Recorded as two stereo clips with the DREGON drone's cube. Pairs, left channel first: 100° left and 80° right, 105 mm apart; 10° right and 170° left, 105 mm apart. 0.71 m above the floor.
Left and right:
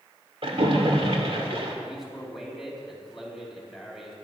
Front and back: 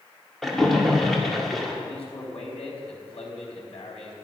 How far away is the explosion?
No explosion in this recording.